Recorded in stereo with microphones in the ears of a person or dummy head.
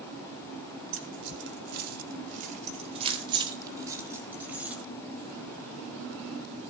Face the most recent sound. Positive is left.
turn(degrees=-5)  # may be behind; listen again after turning